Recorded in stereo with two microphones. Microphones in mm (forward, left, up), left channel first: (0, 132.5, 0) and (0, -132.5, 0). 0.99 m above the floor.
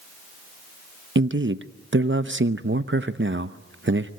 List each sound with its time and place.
1.1 s a man speaking: 45° right (ahead or behind), 0.8 m